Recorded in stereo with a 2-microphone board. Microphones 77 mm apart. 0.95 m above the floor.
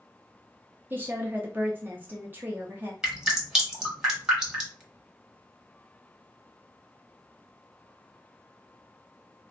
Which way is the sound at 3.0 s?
5° right (ahead or behind).